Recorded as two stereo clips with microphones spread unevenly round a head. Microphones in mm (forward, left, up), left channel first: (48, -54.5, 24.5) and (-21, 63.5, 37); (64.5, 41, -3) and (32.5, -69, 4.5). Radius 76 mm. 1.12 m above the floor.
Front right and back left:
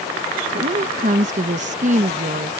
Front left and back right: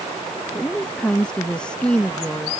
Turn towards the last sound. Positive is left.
turn(degrees=155)